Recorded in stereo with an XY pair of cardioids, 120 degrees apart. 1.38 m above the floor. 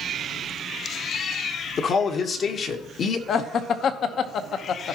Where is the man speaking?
50° left, 1.3 m.